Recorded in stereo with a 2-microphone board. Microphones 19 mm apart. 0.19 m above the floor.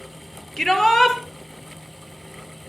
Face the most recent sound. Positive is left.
turn(degrees=30)  # may be behind; listen again after turning